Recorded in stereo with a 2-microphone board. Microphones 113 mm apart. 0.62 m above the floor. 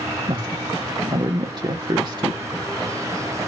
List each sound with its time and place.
0.3 s a woman speaking: 40° right (ahead or behind), 1.0 m